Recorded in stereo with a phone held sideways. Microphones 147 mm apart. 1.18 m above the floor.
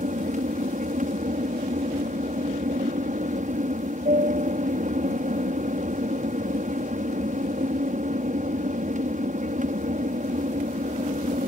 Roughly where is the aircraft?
Right.